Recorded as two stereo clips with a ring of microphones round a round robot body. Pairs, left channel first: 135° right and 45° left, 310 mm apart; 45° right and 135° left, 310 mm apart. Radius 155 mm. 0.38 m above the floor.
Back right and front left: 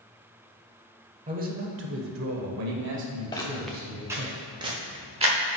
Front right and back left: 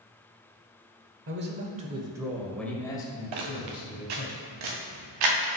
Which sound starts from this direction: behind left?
Footsteps, at 3.3 s.